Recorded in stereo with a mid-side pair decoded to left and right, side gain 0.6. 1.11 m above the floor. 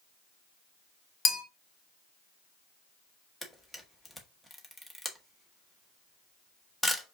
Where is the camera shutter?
5° left, 1.0 m.